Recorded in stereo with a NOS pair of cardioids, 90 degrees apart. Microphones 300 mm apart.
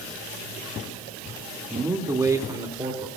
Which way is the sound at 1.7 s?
10° right.